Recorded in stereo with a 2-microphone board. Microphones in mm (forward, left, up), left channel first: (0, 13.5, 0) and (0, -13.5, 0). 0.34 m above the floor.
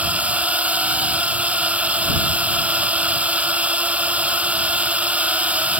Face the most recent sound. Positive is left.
turn(degrees=-60)  # may be behind; listen again after turning